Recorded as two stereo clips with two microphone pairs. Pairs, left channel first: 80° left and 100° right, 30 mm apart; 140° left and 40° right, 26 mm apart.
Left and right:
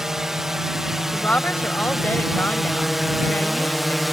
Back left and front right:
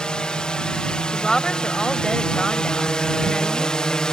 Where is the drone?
175° right; by 4.1 s 170° left.